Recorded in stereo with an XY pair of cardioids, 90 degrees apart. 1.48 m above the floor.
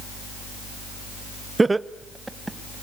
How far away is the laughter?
About 0.7 m.